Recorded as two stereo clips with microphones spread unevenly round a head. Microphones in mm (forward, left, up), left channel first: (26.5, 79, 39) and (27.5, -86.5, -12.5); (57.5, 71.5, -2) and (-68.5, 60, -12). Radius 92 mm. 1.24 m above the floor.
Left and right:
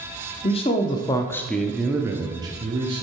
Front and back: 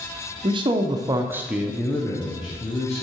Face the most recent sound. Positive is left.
turn(degrees=-50)